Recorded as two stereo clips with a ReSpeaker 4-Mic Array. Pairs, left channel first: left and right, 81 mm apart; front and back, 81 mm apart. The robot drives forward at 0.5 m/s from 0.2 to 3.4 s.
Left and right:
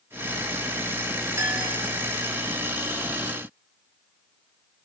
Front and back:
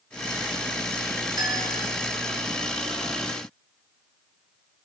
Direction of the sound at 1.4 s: 145° right.